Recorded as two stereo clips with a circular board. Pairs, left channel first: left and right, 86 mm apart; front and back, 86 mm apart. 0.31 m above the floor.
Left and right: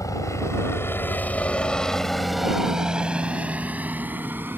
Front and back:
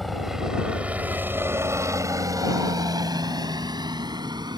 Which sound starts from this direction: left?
A helicopter, at 0.0 s.